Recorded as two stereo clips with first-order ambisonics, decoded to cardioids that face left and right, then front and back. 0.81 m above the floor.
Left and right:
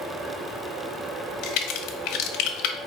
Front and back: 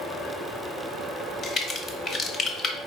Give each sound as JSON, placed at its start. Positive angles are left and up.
{"t": 1.4, "sound": "a crack", "azimuth_deg": 70, "distance_m": 0.6}